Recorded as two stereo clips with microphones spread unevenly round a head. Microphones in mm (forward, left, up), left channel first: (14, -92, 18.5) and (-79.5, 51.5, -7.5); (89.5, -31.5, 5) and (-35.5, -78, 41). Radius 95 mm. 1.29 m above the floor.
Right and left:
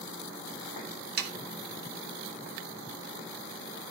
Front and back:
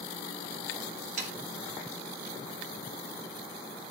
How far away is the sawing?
About 1.1 m.